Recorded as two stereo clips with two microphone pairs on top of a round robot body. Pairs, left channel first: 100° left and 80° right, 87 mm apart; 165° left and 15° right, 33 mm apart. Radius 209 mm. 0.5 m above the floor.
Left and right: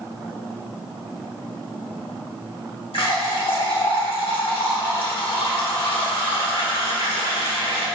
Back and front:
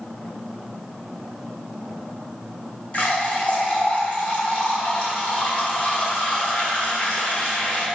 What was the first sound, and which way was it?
A running tap, 110° left.